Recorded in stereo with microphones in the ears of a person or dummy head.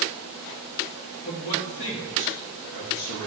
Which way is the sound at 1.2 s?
55° left (ahead or behind).